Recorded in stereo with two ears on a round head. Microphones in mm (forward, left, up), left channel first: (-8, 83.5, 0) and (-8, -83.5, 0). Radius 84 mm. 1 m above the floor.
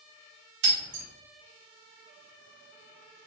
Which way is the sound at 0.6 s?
65° right (ahead or behind).